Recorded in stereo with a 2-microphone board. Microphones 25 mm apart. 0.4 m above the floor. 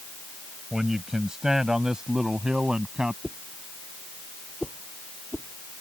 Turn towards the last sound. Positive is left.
turn(degrees=-15)  # may be behind; listen again after turning